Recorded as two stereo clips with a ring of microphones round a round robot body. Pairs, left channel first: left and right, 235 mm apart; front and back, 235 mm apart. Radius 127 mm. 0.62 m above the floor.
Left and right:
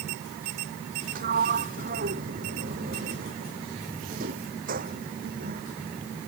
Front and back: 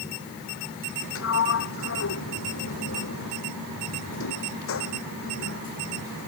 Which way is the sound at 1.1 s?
30° right.